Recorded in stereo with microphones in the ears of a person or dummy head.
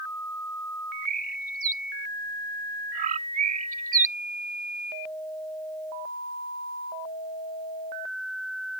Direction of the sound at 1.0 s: 45° right (ahead or behind).